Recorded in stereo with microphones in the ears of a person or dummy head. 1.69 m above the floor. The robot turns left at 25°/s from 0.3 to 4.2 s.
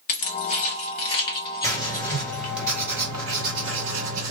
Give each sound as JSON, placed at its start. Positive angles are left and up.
{"t": 0.1, "sound": "keys jangling", "side_deg": 40, "distance_m": 1.1}
{"t": 1.6, "sound": "writing", "azimuth_deg": 10, "distance_m": 1.8}